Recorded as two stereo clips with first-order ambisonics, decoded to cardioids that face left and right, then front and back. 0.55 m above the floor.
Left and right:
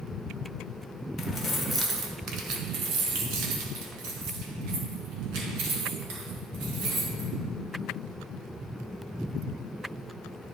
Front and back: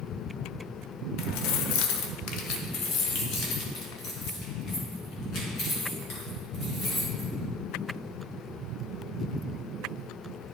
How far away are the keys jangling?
About 0.9 m.